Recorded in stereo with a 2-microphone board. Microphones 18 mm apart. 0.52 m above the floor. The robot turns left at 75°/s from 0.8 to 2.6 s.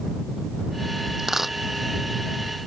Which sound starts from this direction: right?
A dropped coin, at 1.2 s.